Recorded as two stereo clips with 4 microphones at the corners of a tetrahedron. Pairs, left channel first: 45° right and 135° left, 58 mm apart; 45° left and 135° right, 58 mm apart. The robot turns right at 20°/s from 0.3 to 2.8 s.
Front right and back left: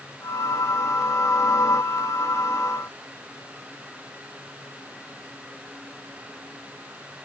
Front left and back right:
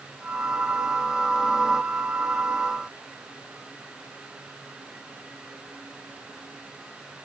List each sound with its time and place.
Only background noise.